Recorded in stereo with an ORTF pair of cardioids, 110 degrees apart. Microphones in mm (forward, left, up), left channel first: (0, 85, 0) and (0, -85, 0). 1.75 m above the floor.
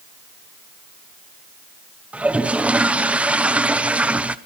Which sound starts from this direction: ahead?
A toilet flushing, at 2.1 s.